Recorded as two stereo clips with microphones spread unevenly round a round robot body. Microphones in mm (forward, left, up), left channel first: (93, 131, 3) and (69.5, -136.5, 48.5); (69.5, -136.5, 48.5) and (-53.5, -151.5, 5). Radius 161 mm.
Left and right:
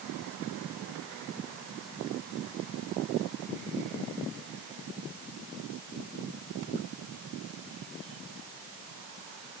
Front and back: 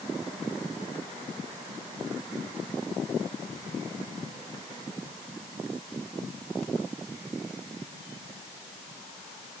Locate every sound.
Only background noise.